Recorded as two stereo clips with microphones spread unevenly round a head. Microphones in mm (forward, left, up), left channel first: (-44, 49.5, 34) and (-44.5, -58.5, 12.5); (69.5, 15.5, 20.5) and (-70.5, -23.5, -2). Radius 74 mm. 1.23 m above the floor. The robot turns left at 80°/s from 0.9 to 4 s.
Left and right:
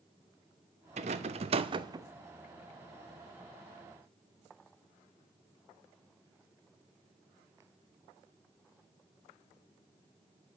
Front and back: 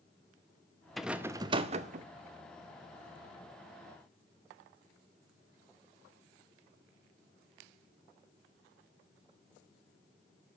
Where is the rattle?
65° right, 0.6 m; by 2.1 s 150° right, 0.6 m.